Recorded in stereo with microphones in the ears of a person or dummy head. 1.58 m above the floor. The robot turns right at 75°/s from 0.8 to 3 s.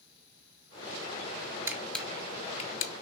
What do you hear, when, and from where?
1.7 s a camera shutter: 15° right (ahead or behind), 0.7 m; by 2.9 s 50° left (ahead or behind), 0.7 m